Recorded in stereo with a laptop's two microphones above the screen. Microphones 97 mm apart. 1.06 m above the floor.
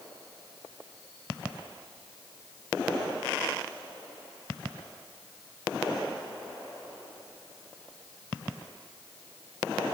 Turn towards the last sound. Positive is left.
No sound to turn to.